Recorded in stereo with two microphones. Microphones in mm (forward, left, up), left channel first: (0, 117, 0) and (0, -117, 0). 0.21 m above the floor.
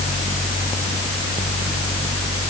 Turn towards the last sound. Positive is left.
No sound to turn to.